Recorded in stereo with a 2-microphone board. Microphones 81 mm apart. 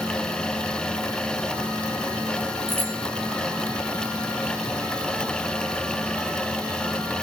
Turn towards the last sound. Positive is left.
turn(degrees=-25)  # may be behind; listen again after turning